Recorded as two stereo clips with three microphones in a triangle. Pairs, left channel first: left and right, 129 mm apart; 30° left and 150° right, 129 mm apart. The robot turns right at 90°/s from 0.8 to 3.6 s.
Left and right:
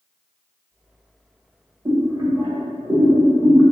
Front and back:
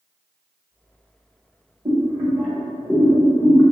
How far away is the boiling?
About 1.4 m.